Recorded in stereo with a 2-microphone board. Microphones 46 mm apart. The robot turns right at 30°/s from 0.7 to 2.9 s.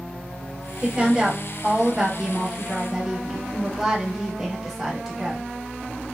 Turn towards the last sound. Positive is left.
turn(degrees=-5)  # may be behind; listen again after turning